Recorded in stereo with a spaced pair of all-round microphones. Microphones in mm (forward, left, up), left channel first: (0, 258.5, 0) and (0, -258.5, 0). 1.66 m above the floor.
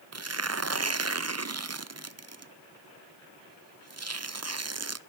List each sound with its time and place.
0.1 s tearing paper: 30° right (ahead or behind), 0.5 m